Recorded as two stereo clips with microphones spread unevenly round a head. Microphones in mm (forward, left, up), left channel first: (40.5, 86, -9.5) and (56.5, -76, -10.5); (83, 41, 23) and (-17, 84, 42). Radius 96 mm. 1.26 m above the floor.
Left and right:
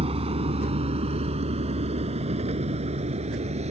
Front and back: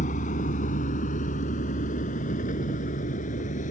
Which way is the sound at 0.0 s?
30° right.